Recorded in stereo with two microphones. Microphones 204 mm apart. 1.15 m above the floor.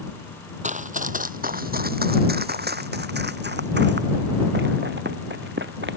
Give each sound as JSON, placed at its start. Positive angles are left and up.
{"t": 0.6, "sound": "running footsteps", "side_deg": -35}